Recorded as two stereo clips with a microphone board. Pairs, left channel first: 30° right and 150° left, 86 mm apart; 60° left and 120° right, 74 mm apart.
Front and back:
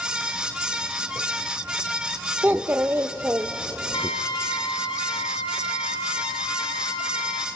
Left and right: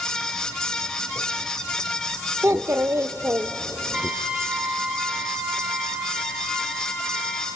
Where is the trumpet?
45° right, 1.6 m.